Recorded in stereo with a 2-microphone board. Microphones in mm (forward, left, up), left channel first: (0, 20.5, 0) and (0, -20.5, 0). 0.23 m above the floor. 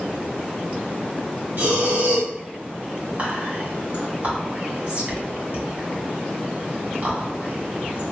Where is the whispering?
40° right (ahead or behind), 2.0 m.